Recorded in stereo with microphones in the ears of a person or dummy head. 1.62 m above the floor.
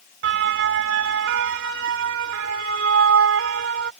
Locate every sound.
0.2 s a siren: 60° right (ahead or behind); by 3.9 s 75° right (ahead or behind)